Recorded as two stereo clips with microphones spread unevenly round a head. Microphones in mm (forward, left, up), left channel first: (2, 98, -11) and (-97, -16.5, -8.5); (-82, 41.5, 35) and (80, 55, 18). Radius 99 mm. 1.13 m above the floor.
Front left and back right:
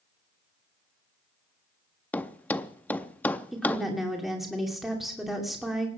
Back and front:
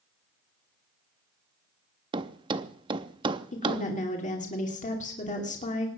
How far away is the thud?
About 0.5 m.